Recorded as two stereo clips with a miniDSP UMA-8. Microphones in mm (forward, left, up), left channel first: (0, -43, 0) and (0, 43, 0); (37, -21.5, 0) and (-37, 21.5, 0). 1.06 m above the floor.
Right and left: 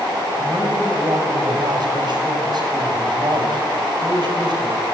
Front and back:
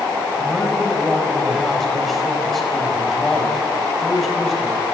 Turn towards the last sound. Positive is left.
turn(degrees=60)